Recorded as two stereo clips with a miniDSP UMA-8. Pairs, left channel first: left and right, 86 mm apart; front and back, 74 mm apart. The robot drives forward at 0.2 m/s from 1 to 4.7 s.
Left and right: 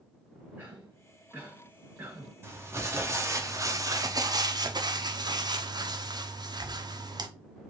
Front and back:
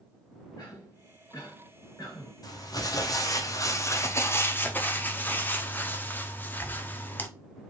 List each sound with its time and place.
0.6 s a cough: 20° right, 2 m; by 2.3 s 25° right, 2.0 m
2.4 s crumpling: 30° right, 0.8 m; by 7.3 s 60° right, 0.5 m